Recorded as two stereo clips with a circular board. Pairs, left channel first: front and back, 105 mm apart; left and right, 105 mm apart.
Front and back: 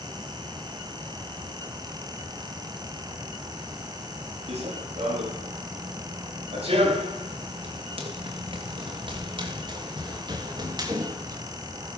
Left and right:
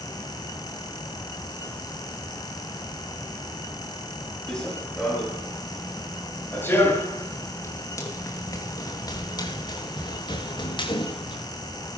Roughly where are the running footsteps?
Behind.